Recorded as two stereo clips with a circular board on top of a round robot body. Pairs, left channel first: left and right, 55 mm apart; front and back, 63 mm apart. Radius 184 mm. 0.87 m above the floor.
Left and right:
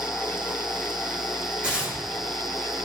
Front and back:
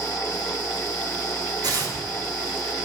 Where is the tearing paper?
160° right, 4 m.